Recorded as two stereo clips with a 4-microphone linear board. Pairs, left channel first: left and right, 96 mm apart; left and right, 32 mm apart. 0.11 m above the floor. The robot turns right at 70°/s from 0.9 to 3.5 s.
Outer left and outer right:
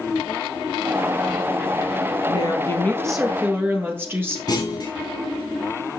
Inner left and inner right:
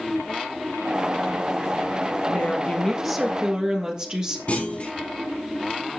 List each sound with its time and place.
2.3 s a woman speaking: 120° left, 2.5 m; by 4.4 s 155° right, 2.5 m
4.5 s a clunk: 45° left (ahead or behind), 2.5 m